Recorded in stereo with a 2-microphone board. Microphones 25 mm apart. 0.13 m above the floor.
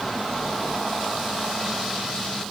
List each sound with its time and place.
Only background noise.